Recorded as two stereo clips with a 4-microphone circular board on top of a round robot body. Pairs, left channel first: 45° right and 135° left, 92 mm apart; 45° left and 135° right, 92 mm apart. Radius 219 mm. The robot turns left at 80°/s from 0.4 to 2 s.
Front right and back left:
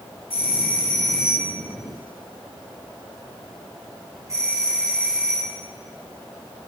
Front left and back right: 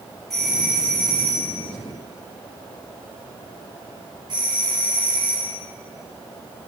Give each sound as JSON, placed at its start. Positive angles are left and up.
{"t": 0.3, "sound": "a doorbell", "azimuth_deg": -40, "distance_m": 7.0}